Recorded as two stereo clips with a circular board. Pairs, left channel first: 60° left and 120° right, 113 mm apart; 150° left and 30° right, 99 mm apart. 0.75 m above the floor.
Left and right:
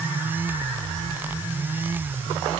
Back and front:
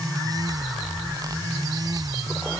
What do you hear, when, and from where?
Only background noise.